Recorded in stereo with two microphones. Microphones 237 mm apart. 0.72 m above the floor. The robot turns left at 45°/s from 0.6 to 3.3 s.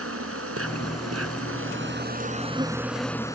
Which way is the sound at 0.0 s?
70° right.